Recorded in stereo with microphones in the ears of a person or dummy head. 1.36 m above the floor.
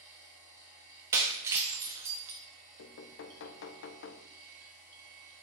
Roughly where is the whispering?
I don't hear whispering.